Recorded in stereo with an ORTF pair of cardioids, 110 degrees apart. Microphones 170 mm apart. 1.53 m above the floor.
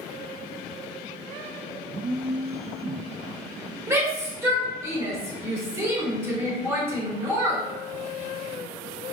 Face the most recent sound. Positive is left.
turn(degrees=-15)